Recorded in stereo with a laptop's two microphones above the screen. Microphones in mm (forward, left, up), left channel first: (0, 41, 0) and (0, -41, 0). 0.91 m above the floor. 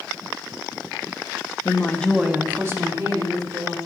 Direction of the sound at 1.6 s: 45° left (ahead or behind).